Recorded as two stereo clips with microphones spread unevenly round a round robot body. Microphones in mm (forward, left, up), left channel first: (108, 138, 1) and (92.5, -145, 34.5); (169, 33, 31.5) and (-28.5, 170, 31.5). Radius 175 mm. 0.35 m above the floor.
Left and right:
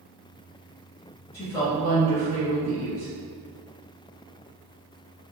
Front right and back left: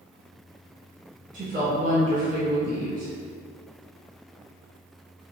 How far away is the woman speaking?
About 1.0 m.